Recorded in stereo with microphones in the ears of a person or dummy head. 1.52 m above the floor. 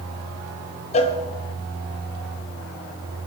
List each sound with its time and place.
0.9 s a cowbell: 35° left (ahead or behind), 1.7 m